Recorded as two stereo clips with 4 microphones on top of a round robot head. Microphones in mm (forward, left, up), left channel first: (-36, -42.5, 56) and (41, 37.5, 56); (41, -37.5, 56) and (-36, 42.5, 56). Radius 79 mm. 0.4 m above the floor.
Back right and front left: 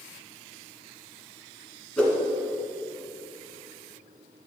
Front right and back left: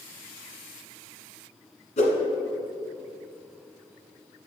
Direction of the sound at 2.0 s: 55° right.